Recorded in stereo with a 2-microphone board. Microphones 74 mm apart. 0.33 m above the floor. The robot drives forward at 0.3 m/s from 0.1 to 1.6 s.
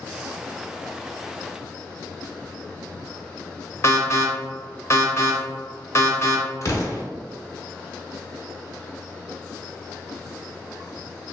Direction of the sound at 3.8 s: 35° left (ahead or behind).